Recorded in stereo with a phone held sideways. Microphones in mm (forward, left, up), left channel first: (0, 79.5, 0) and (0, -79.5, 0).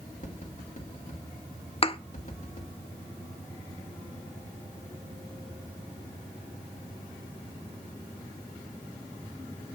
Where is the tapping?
50° left (ahead or behind), 2 m.